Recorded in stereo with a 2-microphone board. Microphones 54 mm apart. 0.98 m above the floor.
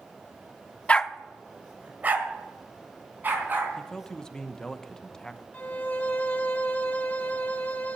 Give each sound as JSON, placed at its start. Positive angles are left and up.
{"t": 0.9, "sound": "a dog barking", "side_deg": 25, "distance_m": 0.5}
{"t": 3.8, "sound": "a man speaking", "side_deg": 10, "distance_m": 0.8}
{"t": 5.5, "sound": "a violin", "side_deg": 30, "distance_m": 1.1}